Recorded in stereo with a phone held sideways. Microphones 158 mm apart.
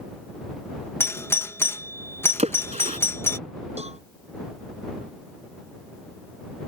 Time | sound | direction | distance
1.0 | a doorbell | 15° left (ahead or behind) | ?
2.4 | a splash | 45° right (ahead or behind) | ?
3.8 | a cowbell | 40° right (ahead or behind) | ?